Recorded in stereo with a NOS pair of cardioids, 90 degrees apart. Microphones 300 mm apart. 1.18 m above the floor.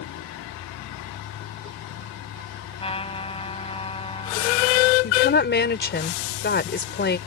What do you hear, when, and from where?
0.0 s a vehicle: 65° left
2.8 s a trumpet: 20° left
5.0 s a woman speaking: 35° left